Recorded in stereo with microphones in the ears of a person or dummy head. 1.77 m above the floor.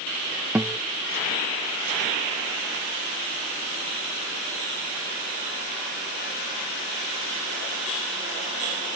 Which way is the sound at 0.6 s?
5° right (ahead or behind).